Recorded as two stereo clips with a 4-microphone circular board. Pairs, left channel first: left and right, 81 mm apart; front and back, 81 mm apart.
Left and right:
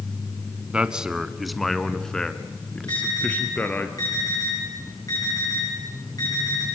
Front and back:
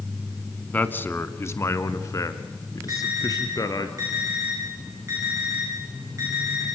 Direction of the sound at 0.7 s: 35° right.